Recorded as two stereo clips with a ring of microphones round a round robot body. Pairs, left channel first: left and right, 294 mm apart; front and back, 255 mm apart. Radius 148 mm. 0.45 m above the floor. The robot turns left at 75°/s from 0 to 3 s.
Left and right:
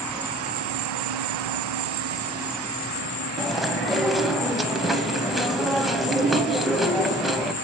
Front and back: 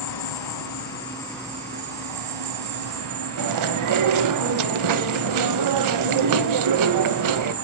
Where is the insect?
10° left, 0.7 m; by 7.6 s 145° left, 0.7 m.